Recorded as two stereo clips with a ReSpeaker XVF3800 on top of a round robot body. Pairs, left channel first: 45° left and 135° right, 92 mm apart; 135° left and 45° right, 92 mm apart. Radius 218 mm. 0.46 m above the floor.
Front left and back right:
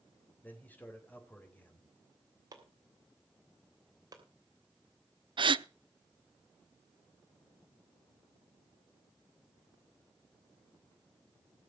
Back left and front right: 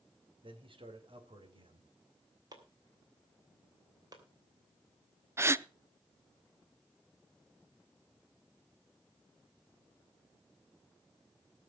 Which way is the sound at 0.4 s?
25° right.